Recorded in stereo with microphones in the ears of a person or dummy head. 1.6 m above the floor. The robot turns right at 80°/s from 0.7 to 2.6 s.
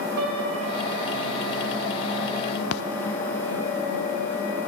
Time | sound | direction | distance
0.2 | a piano | 60° right (ahead or behind) | 3 m
2.7 | a splash | 65° left (ahead or behind) | 0.5 m